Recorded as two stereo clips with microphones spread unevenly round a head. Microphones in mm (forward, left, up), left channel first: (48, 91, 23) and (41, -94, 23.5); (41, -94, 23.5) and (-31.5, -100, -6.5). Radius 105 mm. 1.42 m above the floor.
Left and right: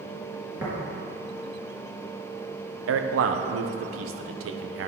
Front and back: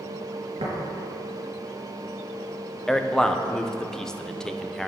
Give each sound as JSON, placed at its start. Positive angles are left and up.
{"t": 0.6, "sound": "tapping", "azimuth_deg": -170, "distance_m": 3.5}
{"t": 2.9, "sound": "a man speaking", "azimuth_deg": -85, "distance_m": 1.0}